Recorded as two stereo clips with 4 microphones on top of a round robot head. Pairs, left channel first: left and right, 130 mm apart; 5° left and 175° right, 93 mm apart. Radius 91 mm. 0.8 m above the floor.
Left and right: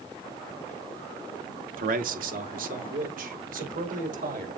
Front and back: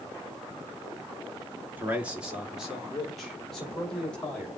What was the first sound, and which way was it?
A man speaking, 100° right.